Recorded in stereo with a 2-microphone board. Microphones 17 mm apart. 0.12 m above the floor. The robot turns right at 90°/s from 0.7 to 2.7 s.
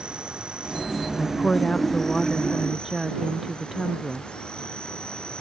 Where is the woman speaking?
70° left; by 4.3 s 155° right.